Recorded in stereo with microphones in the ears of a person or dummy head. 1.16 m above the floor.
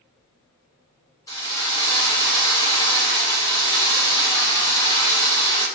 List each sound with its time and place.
1.3 s a drill: 15° left (ahead or behind), 0.7 m